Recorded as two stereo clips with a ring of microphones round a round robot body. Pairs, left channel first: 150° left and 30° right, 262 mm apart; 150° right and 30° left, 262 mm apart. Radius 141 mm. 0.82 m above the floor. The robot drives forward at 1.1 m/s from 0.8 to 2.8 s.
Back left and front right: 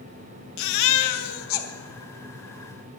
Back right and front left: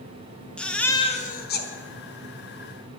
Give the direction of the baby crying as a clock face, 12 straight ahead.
8 o'clock.